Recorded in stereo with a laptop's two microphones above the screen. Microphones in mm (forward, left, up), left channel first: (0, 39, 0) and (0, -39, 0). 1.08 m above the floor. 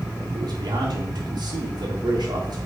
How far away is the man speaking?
About 1.4 m.